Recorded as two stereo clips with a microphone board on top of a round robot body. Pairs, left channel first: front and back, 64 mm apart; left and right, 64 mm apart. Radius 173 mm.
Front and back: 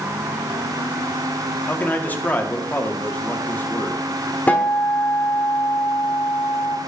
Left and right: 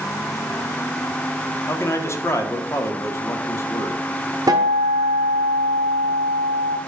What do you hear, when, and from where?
1.7 s a man speaking: 60° left, 1.6 m
4.5 s a guitar: 65° right, 0.8 m